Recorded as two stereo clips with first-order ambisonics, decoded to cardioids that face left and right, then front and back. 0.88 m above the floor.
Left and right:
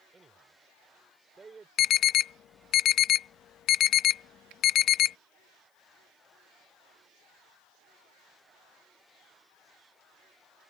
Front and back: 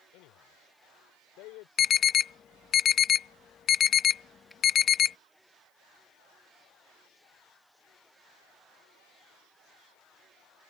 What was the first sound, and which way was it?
A man speaking, 15° right.